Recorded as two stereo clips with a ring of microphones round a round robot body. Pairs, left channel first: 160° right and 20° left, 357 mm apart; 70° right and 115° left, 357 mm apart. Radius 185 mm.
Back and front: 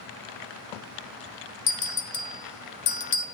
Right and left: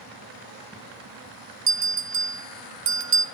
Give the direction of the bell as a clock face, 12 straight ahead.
7 o'clock.